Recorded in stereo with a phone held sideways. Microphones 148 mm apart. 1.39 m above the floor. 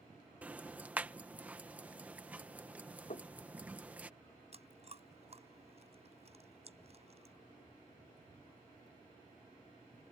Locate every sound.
0.4 s ticking: 10° right (ahead or behind)
3.1 s knocking: 65° left (ahead or behind)
4.5 s chewing: 45° right (ahead or behind)